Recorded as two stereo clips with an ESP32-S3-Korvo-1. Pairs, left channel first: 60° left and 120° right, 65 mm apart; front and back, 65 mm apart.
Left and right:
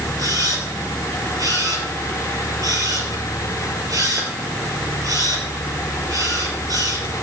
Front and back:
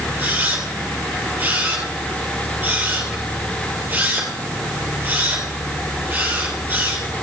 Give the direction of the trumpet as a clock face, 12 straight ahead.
No trumpet in this recording.